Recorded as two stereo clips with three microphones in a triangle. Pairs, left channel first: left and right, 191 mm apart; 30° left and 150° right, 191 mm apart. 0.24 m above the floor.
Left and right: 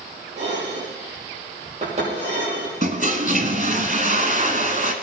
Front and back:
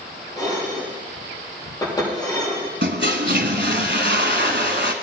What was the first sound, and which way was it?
Dishes clattering, 40° right.